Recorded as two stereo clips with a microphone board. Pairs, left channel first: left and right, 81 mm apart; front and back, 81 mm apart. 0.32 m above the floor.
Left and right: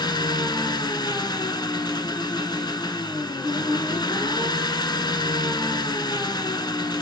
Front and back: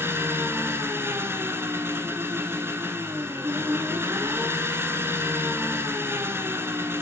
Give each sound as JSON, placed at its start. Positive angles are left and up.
{"t": 0.0, "sound": "an engine running", "azimuth_deg": 120, "distance_m": 0.9}